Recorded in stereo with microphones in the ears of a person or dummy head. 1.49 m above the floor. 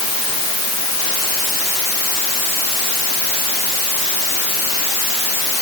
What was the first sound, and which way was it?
Only background noise.